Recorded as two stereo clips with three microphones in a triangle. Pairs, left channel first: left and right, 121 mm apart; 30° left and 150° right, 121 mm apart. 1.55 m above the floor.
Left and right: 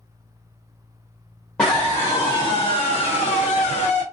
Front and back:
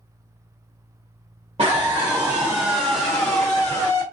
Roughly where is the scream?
Behind.